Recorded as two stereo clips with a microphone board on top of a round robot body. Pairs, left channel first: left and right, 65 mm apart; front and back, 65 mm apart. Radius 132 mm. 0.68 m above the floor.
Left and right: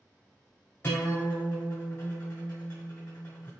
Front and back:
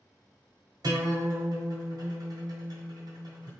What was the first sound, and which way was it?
A guitar, 155° left.